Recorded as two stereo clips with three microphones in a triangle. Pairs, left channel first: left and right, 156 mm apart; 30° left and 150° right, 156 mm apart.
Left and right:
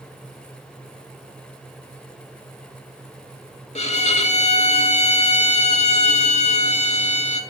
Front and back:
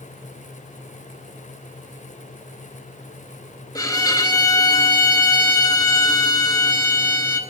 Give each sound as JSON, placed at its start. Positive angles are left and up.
{"t": 3.8, "sound": "a violin", "azimuth_deg": 85, "distance_m": 0.6}